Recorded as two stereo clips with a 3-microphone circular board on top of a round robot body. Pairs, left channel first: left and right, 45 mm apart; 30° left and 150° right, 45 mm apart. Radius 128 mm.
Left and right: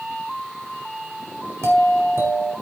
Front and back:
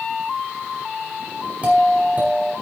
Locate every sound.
1.6 s a doorbell: 90° right, 4.5 m